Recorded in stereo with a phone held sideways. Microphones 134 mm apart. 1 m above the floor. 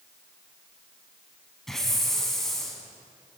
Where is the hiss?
5° left (ahead or behind), 5.5 m.